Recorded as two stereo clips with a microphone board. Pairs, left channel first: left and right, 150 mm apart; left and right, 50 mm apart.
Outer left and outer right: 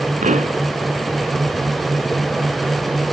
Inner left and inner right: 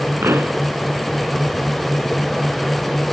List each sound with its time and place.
0.2 s a pop: 55° right (ahead or behind)